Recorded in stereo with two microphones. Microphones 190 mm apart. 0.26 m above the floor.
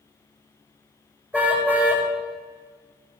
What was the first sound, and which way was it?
A car horn, 10° right (ahead or behind).